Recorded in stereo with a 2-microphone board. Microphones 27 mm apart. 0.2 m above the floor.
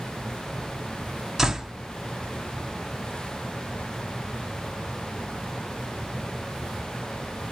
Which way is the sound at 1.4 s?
20° right (ahead or behind).